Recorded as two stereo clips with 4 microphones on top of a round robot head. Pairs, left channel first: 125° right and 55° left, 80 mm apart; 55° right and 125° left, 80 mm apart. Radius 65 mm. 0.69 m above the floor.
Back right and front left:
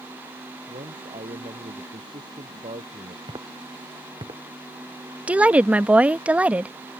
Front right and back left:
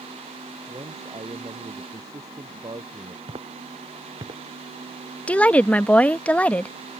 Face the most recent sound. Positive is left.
turn(degrees=0)